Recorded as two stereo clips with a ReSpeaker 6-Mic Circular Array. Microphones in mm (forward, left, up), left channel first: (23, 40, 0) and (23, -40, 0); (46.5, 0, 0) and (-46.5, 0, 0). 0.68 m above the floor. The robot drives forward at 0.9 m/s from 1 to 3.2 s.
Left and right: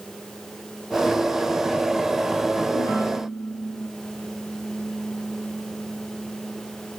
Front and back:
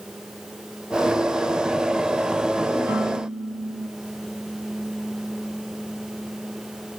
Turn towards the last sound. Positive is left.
turn(degrees=125)